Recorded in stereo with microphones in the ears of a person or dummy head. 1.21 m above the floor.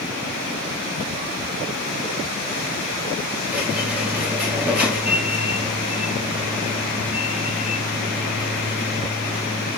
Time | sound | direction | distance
3.5 | a squeak | 5° right (ahead or behind) | 3.5 m